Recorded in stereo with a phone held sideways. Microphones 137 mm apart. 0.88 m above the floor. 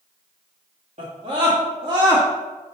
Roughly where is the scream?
Right.